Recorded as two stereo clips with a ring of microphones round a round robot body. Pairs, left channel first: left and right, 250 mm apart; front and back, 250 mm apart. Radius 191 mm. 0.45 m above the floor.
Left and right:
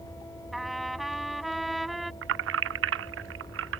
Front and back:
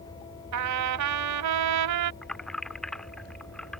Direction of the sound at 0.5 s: Straight behind.